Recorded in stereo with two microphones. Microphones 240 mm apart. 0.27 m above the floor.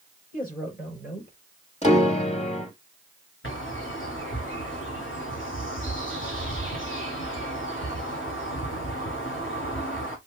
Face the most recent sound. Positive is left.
turn(degrees=55)  # may be behind; listen again after turning